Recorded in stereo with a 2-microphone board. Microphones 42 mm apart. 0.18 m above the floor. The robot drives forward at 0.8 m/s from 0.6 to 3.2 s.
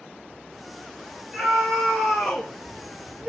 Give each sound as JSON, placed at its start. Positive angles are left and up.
{"t": 1.3, "sound": "a scream", "side_deg": -15, "distance_m": 2.0}